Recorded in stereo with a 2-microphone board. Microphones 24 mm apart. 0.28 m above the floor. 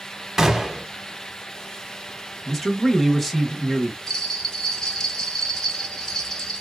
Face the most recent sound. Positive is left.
turn(degrees=25)  # may be behind; listen again after turning